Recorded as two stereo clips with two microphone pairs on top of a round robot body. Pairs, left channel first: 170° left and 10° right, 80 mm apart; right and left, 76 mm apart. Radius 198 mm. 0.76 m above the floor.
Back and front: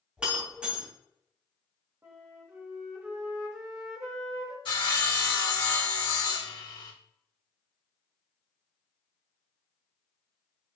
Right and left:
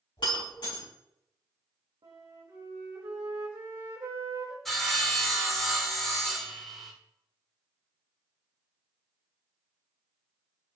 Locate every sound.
0.2 s breaking glass: 85° right, 3.5 m
2.0 s a flute: 55° left, 1.0 m
4.7 s sawing: 175° right, 2.5 m